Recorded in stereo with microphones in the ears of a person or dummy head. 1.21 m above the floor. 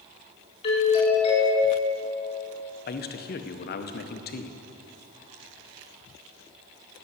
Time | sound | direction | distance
0.6 | a doorbell | 35° left (ahead or behind) | 4.5 m
2.9 | a man speaking | 45° left (ahead or behind) | 0.8 m